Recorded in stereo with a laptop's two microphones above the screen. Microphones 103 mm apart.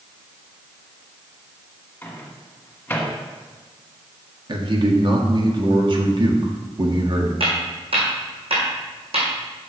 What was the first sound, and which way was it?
A microwave, 15° left (ahead or behind).